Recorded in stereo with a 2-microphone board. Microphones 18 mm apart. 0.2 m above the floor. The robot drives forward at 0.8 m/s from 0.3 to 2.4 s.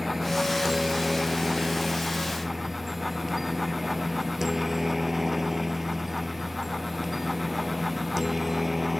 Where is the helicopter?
15° right (ahead or behind); by 9.0 s 10° right (ahead or behind).